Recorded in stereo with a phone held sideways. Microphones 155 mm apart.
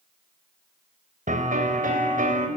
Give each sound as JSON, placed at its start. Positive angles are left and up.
{"t": 1.3, "sound": "a piano", "side_deg": -65, "distance_m": 3.5}